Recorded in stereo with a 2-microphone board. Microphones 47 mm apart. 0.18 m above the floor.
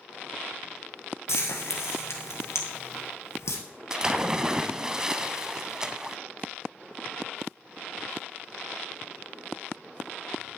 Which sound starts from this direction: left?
Frying, at 1.3 s.